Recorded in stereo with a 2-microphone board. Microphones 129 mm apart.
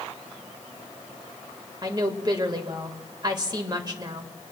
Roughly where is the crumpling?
I don't hear crumpling.